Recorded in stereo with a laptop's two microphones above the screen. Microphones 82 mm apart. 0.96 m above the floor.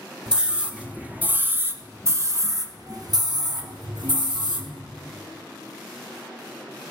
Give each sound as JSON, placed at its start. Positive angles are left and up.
{"t": 0.3, "sound": "a scream", "side_deg": -10, "distance_m": 2.0}